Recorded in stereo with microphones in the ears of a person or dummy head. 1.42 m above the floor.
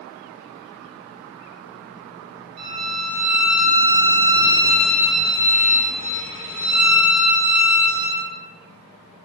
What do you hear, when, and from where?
2.6 s a violin: 60° right (ahead or behind), 1.8 m